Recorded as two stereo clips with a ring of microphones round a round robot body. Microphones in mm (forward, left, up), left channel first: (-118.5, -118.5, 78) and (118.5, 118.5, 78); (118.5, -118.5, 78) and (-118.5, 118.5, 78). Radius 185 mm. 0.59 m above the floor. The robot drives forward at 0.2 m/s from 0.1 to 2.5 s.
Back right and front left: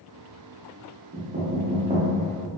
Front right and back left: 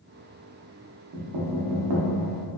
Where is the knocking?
100° left, 0.6 m; by 2.1 s 120° left, 0.7 m.